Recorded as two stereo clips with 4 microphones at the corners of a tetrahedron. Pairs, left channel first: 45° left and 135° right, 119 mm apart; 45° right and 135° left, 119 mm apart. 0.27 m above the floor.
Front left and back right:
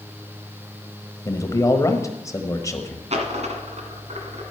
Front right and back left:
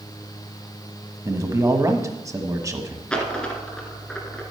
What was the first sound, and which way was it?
A man speaking, 90° left.